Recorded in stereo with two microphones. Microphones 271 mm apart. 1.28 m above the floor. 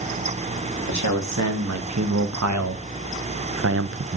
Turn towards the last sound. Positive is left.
turn(degrees=-40)  # may be behind; listen again after turning